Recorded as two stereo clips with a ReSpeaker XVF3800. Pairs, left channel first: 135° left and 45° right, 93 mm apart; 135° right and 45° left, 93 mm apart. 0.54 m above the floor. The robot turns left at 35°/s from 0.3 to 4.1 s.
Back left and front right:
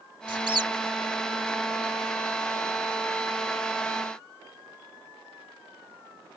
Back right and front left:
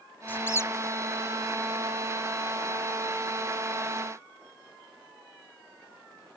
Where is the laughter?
No laughter in this recording.